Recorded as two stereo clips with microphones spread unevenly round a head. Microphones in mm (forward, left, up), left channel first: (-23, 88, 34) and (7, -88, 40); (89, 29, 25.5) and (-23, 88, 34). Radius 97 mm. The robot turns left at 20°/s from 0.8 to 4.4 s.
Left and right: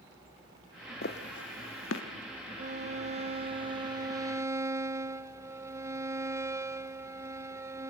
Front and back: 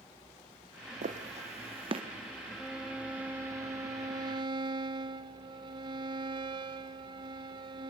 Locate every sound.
1.0 s footsteps: 135° left, 3.5 m; by 2.0 s 105° left, 3.5 m
2.6 s a violin: 120° right, 1.2 m; by 7.9 s 155° right, 1.2 m